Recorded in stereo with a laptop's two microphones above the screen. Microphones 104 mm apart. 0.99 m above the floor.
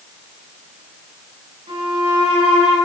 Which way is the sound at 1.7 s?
65° right (ahead or behind).